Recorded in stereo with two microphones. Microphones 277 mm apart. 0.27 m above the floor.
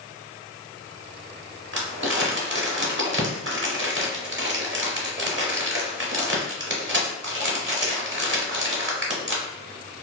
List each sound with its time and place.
1.7 s crumpling: 45° right (ahead or behind), 0.7 m